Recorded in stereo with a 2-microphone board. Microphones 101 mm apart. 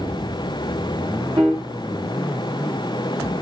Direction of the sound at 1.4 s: 50° right (ahead or behind).